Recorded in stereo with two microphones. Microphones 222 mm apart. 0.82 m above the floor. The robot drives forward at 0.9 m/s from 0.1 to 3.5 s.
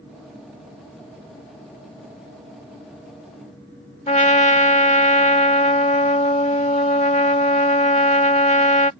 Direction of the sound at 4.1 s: 30° left (ahead or behind).